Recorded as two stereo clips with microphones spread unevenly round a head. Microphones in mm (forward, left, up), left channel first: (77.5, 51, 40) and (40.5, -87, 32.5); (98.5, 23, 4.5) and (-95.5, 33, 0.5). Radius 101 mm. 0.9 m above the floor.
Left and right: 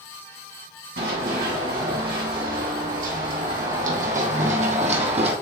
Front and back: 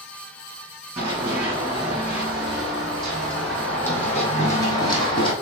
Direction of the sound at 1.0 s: 105° right.